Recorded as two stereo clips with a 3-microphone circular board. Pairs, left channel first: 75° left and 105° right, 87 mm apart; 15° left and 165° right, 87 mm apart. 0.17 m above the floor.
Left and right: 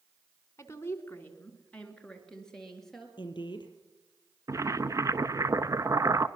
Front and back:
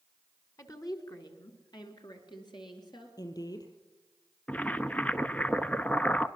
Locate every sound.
0.6 s a woman speaking: 35° left, 1.8 m; by 3.1 s 10° right, 3.5 m
3.2 s a woman speaking: 50° left, 4 m
4.5 s boiling: 55° right, 0.7 m